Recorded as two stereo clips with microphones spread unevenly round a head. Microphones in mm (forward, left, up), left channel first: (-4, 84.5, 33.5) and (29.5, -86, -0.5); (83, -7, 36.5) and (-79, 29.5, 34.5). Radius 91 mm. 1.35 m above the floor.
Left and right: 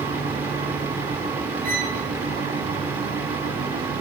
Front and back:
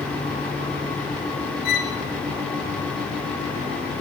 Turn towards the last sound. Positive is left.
turn(degrees=-40)